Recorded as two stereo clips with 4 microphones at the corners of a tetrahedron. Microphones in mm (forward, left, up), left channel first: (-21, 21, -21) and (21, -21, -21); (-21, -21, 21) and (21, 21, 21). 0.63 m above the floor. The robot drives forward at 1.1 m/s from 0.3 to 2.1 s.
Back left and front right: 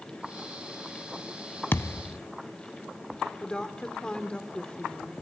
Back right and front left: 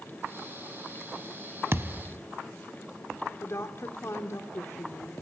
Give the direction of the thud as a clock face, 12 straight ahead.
9 o'clock.